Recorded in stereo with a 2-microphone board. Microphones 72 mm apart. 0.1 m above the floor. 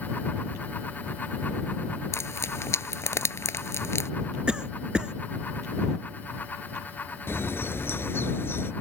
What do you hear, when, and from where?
2.1 s frying: 45° left (ahead or behind)
4.5 s a cough: 15° right (ahead or behind)
7.3 s a bird: 40° left (ahead or behind)